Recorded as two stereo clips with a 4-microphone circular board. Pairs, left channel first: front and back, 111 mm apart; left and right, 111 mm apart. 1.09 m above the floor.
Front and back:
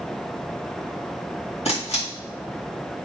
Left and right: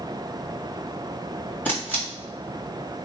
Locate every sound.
1.6 s a camera shutter: 15° left, 2 m